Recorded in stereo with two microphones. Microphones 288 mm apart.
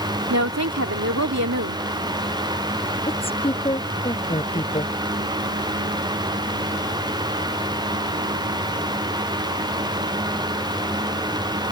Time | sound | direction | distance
0.3 | a woman speaking | 65° right (ahead or behind) | ?
3.1 | a woman speaking | 20° left (ahead or behind) | ?